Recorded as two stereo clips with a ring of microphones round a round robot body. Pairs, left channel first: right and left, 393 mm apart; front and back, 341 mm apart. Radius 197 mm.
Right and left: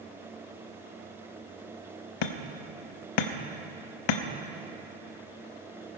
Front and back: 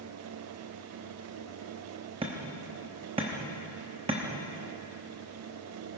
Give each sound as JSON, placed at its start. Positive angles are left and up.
{"t": 2.2, "sound": "hammering", "azimuth_deg": -105, "distance_m": 0.8}